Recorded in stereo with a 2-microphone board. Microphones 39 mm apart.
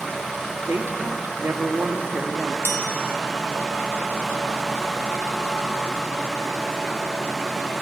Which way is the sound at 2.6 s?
75° left (ahead or behind).